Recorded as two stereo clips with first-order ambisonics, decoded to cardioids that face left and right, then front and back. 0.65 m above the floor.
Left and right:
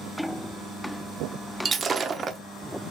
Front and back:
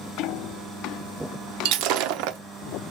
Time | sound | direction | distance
1.6 | breaking glass | 160° right | 0.6 m